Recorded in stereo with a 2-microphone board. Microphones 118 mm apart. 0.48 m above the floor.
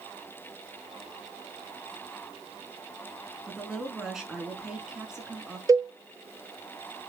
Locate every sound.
3.5 s a woman speaking: 5° right (ahead or behind), 6 m
5.7 s a cowbell: 30° right (ahead or behind), 0.8 m